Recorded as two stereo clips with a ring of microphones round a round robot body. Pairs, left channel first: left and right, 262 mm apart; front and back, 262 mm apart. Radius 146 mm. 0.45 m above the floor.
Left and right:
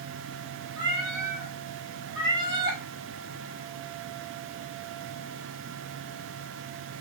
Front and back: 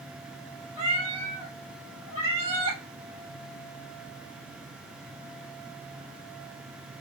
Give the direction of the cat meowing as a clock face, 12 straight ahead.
6 o'clock.